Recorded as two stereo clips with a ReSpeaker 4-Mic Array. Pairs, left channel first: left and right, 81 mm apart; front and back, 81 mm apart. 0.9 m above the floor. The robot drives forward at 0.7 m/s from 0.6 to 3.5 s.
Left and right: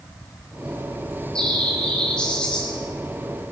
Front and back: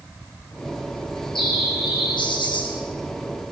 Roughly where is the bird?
Ahead.